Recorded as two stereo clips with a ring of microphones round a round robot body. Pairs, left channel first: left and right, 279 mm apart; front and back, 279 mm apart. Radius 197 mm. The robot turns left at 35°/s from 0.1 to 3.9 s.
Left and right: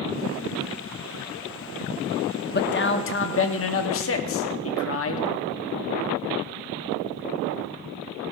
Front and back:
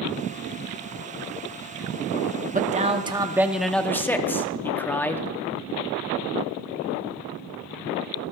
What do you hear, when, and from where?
2.5 s a man speaking: 130° left, 1.2 m; by 5.3 s 80° left, 1.2 m